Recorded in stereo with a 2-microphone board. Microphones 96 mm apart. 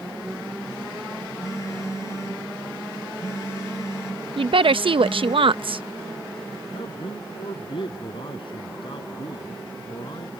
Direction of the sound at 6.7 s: 60° left (ahead or behind).